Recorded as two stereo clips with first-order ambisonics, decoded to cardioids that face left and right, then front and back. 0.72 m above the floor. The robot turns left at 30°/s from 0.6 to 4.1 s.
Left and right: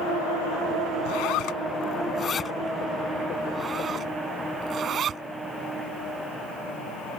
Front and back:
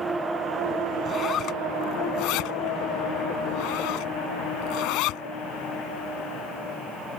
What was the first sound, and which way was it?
A zipper, 65° left.